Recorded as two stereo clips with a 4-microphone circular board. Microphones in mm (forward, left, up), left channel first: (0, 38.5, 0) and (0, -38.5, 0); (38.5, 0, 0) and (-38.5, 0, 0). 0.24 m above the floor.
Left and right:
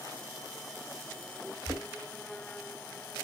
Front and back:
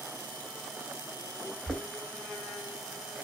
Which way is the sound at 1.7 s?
40° right.